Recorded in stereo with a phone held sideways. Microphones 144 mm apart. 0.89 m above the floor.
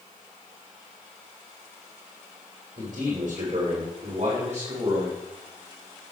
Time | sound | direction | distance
2.8 | a man speaking | 60° right (ahead or behind) | 3.5 m